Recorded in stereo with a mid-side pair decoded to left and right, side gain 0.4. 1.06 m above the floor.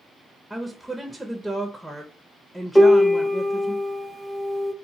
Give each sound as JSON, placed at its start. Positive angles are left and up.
{"t": 0.5, "sound": "a woman speaking", "azimuth_deg": -5, "distance_m": 0.5}
{"t": 2.8, "sound": "a piano", "azimuth_deg": 20, "distance_m": 0.6}